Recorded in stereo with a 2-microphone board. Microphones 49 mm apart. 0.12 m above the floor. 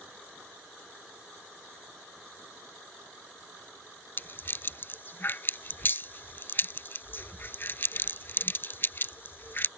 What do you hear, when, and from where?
4.2 s a rattle: 45° left (ahead or behind)